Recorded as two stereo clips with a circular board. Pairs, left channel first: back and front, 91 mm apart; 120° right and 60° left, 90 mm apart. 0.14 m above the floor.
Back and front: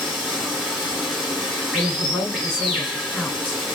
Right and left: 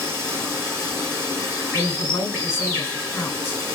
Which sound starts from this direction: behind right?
A woman speaking, at 1.7 s.